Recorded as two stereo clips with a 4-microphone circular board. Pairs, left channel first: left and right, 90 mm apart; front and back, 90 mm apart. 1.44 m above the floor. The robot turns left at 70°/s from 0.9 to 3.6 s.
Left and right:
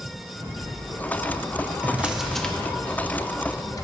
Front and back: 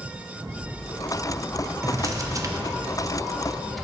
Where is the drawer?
145° right, 0.7 m; by 3.9 s 90° left, 0.7 m.